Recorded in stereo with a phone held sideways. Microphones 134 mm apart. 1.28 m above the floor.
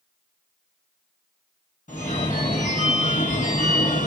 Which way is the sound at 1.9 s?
75° left (ahead or behind).